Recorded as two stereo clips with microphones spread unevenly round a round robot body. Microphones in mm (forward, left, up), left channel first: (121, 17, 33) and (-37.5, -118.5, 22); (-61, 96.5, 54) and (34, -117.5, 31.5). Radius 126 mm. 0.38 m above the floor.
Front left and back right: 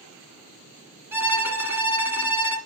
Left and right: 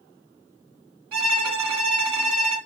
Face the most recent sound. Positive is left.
turn(degrees=-60)